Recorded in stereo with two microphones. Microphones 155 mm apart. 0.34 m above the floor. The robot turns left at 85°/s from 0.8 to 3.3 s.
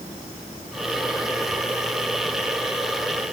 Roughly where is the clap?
I don't hear a clap.